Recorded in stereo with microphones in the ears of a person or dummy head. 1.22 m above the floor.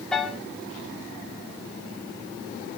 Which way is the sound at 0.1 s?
5° left (ahead or behind).